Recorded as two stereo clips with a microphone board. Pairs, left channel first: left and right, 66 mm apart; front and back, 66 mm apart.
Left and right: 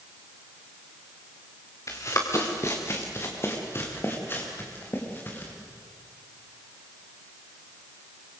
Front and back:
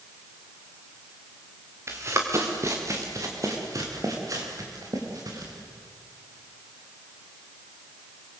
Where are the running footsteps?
130° left, 4 m; by 5.5 s 150° left, 6.5 m.